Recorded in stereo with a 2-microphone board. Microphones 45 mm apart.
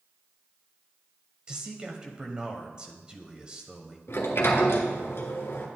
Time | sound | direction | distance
1.5 | a man speaking | 20° right (ahead or behind) | 1.0 m
4.1 | a sliding door | 65° left (ahead or behind) | 1.4 m